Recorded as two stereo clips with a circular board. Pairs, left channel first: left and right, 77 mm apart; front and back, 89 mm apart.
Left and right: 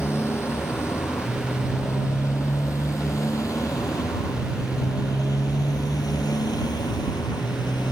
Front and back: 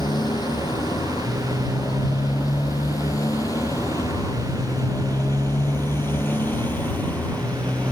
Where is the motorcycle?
35° left; by 7.9 s 75° left.